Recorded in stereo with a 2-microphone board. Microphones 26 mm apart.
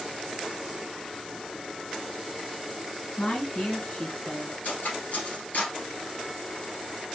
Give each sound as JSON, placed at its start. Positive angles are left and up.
{"t": 3.2, "sound": "a woman speaking", "side_deg": 50, "distance_m": 1.7}
{"t": 4.6, "sound": "cutlery clinking", "side_deg": 70, "distance_m": 2.5}